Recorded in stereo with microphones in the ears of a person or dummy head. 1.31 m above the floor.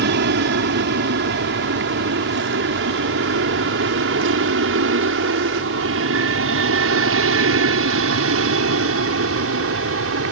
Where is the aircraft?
55° right (ahead or behind); by 10.3 s 70° right (ahead or behind).